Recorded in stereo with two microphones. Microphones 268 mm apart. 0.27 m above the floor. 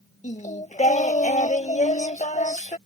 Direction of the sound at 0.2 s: 25° left (ahead or behind).